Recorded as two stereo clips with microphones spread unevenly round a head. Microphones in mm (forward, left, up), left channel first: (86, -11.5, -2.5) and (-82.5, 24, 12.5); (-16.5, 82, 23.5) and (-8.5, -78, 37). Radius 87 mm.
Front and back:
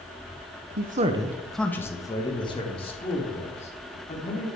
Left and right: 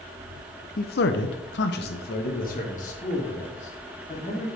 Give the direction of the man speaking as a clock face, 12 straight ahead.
8 o'clock.